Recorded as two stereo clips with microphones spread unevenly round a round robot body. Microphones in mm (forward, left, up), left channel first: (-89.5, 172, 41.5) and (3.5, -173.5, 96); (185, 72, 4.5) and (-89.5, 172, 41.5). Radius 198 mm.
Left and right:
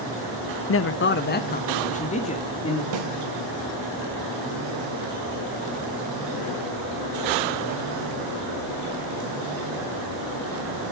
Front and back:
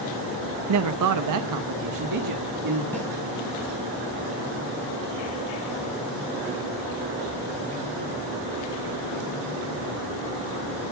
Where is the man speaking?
145° left, 0.9 m; by 2.8 s 175° left, 2.0 m.